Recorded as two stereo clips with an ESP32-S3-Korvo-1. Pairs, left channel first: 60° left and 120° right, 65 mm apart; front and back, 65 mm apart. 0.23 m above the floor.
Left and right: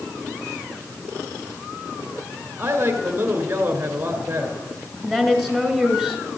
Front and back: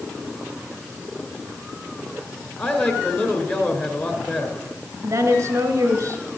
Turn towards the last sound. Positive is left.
turn(degrees=145)